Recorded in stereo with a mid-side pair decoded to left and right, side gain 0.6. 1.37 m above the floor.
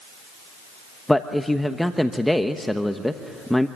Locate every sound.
1.1 s a man speaking: 5° left, 1.1 m